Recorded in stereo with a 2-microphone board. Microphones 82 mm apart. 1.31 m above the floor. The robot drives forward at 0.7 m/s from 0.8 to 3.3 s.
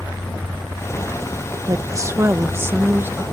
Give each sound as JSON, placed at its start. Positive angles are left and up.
{"t": 1.7, "sound": "a woman speaking", "side_deg": -45}